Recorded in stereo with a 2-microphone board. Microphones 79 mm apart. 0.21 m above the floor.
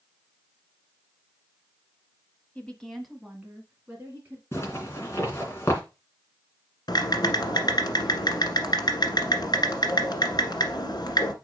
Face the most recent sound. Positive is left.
turn(degrees=65)  # may be behind; listen again after turning